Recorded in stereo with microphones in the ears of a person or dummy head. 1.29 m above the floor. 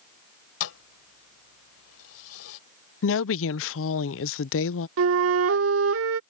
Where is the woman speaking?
60° left (ahead or behind).